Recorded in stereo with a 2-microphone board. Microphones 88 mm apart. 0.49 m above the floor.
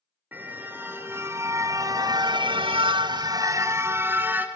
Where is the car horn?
20° right (ahead or behind), 4 m.